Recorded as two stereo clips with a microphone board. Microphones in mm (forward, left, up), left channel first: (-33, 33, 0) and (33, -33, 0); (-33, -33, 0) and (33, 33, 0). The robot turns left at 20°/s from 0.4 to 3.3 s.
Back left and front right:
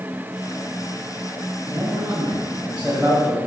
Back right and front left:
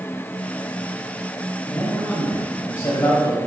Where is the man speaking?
90° right, 1.9 m; by 3.4 s 120° right, 1.9 m.